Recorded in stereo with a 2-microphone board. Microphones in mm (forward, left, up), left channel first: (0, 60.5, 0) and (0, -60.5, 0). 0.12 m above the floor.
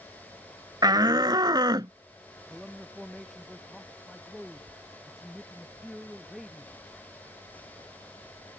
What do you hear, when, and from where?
0.8 s a shout: 30° right (ahead or behind); by 1.9 s 35° right (ahead or behind)
2.5 s a man speaking: centre (ahead or behind)